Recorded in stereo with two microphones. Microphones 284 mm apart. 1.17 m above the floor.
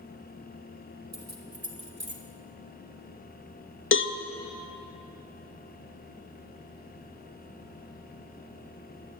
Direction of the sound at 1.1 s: 60° right (ahead or behind).